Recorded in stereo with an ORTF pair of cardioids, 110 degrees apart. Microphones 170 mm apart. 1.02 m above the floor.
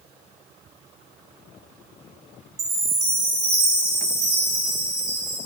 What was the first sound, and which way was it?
A chime, 35° right.